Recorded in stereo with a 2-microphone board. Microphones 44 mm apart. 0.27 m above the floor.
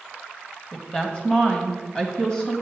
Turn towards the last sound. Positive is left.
turn(degrees=20)  # may be behind; listen again after turning